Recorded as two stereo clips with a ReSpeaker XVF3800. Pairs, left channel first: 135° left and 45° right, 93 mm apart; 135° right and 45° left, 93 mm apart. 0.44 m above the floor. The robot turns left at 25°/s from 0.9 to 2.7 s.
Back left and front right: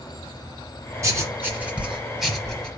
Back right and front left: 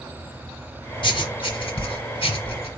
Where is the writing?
105° right, 0.9 m; by 2.7 s 145° right, 0.9 m.